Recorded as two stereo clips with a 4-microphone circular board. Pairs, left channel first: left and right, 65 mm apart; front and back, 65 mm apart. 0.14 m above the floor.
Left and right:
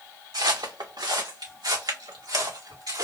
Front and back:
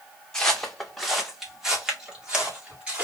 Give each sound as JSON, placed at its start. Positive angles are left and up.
{"t": 0.3, "sound": "footsteps", "azimuth_deg": -80, "distance_m": 1.0}